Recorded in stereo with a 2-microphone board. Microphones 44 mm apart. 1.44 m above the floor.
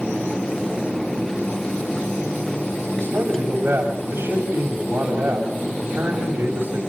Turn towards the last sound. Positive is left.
turn(degrees=-45)  # may be behind; listen again after turning